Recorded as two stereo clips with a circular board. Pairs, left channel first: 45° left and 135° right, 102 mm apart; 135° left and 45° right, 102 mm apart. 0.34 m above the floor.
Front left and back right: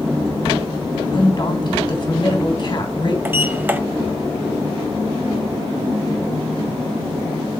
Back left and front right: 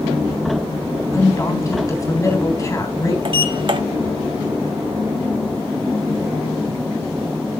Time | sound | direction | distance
1.1 | a woman speaking | 80° left | 3 m
3.2 | a sliding door | 65° right | 1.0 m